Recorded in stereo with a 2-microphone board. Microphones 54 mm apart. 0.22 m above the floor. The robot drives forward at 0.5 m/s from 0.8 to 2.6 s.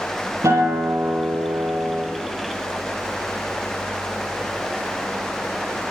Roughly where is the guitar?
Right.